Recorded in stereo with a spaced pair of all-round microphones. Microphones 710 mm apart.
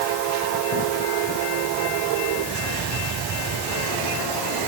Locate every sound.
Only background noise.